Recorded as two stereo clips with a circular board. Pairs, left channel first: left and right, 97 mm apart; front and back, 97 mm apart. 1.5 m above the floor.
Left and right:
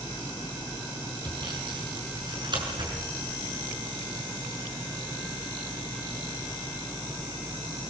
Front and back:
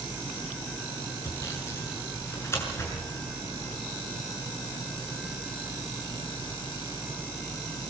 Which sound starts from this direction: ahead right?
Sawing, at 1.2 s.